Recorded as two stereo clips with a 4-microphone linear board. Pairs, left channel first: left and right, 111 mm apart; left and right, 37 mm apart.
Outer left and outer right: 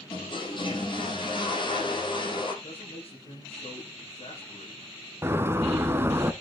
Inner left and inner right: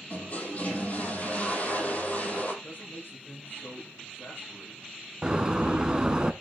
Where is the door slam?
20° right (ahead or behind), 1.0 m.